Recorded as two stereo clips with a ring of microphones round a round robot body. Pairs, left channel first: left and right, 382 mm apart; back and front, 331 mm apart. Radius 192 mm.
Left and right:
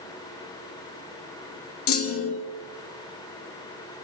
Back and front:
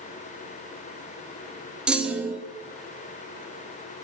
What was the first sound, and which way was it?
A clunk, 85° left.